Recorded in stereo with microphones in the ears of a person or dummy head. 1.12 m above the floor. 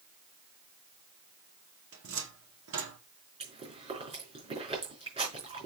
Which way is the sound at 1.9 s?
65° right (ahead or behind).